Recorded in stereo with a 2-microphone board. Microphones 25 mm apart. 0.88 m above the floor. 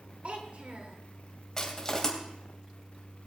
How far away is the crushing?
About 2.5 m.